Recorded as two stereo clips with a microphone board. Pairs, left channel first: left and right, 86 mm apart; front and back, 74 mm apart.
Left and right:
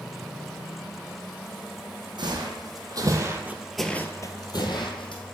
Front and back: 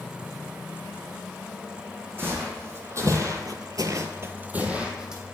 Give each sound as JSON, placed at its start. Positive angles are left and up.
{"t": 2.2, "sound": "footsteps", "azimuth_deg": -120, "distance_m": 1.8}